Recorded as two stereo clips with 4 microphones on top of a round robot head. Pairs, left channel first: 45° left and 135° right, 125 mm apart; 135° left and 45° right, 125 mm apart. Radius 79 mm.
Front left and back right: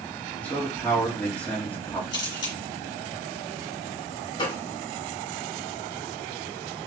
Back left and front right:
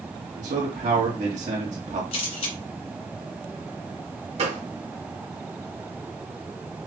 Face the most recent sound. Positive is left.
turn(degrees=-10)